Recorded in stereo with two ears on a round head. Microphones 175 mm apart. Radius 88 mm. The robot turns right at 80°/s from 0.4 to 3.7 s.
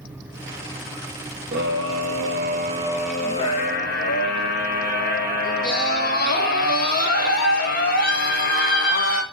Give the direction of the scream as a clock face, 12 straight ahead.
4 o'clock.